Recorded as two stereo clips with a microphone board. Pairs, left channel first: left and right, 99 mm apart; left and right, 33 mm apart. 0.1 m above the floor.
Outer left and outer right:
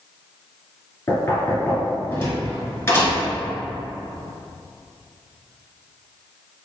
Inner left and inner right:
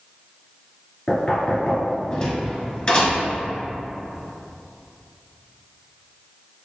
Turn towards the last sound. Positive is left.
turn(degrees=25)  # may be behind; listen again after turning